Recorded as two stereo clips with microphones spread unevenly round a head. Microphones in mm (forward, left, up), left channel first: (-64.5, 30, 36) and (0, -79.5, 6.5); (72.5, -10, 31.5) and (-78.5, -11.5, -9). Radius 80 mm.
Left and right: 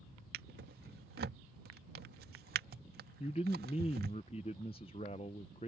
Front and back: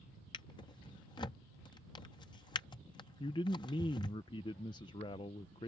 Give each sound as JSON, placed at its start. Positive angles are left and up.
{"t": 0.3, "sound": "a drawer", "azimuth_deg": -50}
{"t": 3.2, "sound": "a man speaking", "azimuth_deg": 65}